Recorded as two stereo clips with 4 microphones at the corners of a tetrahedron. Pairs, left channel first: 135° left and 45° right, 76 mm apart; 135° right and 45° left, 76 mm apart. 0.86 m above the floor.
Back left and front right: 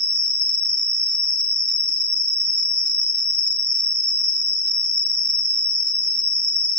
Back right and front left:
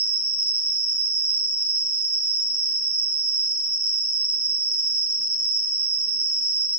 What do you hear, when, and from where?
0.0 s an insect: 15° right, 0.7 m